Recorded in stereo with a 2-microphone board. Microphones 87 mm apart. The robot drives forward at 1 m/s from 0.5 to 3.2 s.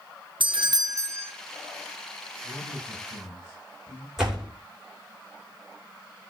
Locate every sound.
0.4 s a doorbell: 70° right (ahead or behind), 0.5 m; by 1.3 s 30° right (ahead or behind), 1.0 m
2.4 s a man speaking: 65° left (ahead or behind), 9.5 m; by 4.1 s 70° left (ahead or behind), 9.5 m
4.2 s a door slam: 5° right (ahead or behind), 3.5 m